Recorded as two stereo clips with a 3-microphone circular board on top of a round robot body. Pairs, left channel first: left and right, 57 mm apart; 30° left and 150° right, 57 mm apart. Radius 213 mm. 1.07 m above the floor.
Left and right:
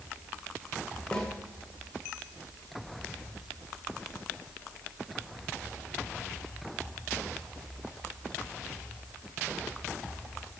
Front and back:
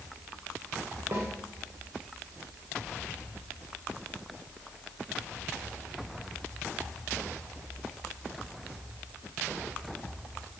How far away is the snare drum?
About 1.8 m.